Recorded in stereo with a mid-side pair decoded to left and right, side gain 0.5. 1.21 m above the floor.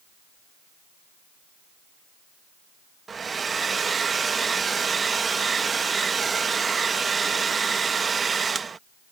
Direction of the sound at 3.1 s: 35° right.